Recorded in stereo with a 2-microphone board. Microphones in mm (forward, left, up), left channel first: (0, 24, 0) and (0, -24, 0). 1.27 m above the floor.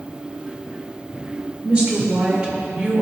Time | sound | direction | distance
1.6 | a woman speaking | 20° right (ahead or behind) | 1.8 m